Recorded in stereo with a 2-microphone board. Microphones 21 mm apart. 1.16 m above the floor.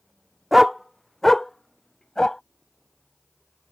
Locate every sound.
0.5 s a dog barking: 10° right (ahead or behind); by 2.4 s 25° left (ahead or behind)